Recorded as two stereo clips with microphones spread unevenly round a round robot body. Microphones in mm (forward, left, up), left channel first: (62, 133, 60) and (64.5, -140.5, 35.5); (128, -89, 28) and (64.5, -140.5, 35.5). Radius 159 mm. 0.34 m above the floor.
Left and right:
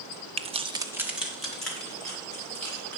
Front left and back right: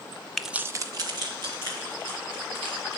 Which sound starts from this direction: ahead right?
Keys jangling, at 0.4 s.